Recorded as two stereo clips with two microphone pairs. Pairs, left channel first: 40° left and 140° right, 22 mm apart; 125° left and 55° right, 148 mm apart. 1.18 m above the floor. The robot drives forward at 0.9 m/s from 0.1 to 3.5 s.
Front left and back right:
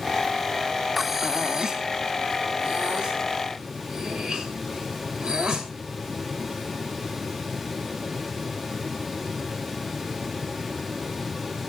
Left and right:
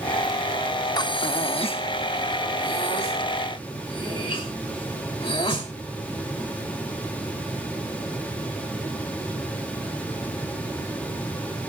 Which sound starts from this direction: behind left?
Breathing, at 1.0 s.